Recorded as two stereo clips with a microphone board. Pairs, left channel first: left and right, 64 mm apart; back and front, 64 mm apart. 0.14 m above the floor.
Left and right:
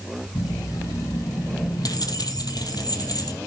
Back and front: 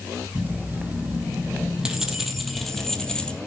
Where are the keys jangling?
60° left, 4 m; by 3.4 s 105° left, 3 m.